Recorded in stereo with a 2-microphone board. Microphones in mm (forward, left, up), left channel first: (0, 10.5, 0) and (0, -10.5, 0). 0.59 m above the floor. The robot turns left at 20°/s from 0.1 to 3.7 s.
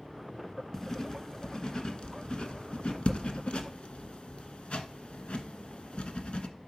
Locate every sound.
0.7 s writing: 20° left (ahead or behind), 1.3 m; by 6.5 s 75° left (ahead or behind), 1.3 m